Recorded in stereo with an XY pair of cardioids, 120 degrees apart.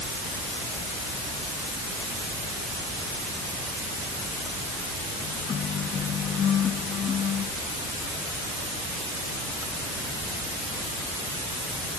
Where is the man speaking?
No man speaking in this recording.